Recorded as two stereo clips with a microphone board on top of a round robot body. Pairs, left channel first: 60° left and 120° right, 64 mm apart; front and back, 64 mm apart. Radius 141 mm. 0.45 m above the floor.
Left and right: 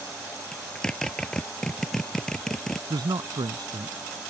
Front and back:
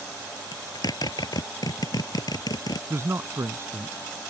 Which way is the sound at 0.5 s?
25° right.